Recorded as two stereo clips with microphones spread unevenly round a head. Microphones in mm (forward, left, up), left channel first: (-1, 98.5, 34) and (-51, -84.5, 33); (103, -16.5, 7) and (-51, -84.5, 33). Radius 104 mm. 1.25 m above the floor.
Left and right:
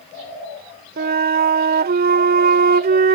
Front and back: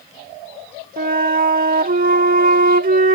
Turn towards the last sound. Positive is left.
turn(degrees=-140)